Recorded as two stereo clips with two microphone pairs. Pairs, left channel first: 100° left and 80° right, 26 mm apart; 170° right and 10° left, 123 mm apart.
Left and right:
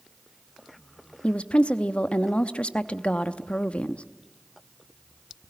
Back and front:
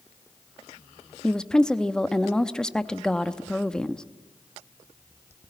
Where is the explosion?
I don't hear an explosion.